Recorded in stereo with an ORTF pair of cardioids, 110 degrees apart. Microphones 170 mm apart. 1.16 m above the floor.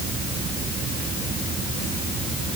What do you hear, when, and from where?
Only background noise.